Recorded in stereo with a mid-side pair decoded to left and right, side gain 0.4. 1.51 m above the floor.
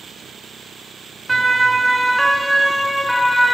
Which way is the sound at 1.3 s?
25° right.